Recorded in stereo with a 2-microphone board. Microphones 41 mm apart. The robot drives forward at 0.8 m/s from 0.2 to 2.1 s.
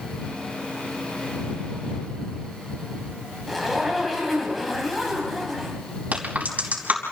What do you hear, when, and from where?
3.5 s a zipper: centre (ahead or behind), 5 m
6.1 s a crack: 40° right (ahead or behind), 5 m